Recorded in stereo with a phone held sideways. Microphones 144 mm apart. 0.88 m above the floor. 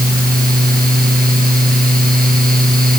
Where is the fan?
85° right.